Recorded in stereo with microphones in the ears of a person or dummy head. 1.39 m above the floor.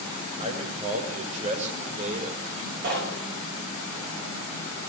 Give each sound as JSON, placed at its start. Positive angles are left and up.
{"t": 0.4, "sound": "a man speaking", "side_deg": -35, "distance_m": 7.0}
{"t": 2.8, "sound": "knocking", "side_deg": -65, "distance_m": 5.5}